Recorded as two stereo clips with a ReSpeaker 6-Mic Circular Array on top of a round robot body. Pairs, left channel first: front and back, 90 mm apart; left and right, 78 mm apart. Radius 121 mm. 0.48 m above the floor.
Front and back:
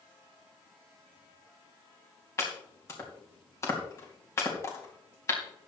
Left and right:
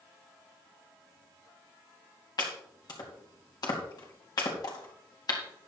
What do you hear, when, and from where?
2.4 s chopping: 60° left, 3 m